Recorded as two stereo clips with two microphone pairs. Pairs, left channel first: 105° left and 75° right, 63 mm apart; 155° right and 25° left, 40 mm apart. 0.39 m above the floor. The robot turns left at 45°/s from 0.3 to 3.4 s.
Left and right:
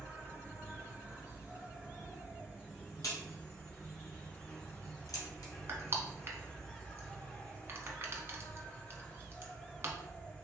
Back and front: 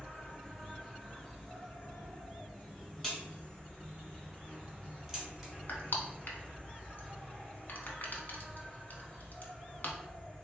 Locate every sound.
0.0 s an insect: 70° right, 1.9 m; by 10.4 s 150° left, 1.9 m
3.0 s a crack: 125° left, 1.3 m; by 5.5 s 110° left, 1.3 m
5.7 s crushing: 125° right, 0.6 m